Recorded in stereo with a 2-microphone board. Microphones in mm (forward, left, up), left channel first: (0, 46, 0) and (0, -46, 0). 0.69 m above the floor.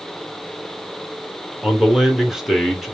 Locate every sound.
1.6 s a man speaking: 5° right (ahead or behind), 1.0 m